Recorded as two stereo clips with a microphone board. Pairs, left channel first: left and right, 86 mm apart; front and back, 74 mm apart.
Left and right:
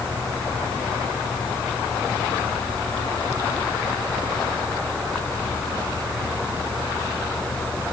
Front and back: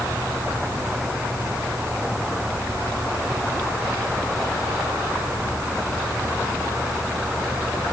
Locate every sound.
Only background noise.